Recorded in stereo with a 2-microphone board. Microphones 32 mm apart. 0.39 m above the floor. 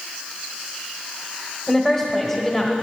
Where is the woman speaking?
10° left (ahead or behind), 1.4 m.